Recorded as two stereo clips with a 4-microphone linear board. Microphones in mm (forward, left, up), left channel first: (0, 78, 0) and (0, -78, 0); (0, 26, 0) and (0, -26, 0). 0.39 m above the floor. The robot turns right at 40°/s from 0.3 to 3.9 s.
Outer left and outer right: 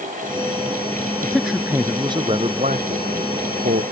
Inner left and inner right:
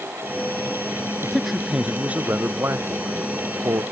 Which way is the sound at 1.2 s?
175° left.